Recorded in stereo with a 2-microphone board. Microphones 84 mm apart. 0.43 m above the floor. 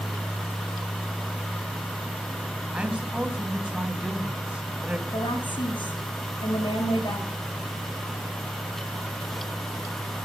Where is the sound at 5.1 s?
70° left (ahead or behind), 9 m.